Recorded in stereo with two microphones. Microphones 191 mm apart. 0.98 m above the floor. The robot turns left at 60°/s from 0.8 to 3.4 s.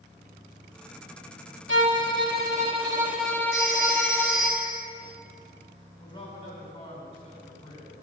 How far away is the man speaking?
About 3.5 m.